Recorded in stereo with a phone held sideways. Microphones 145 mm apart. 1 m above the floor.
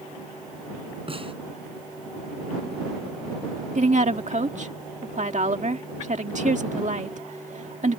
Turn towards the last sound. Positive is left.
turn(degrees=-55)  # may be behind; listen again after turning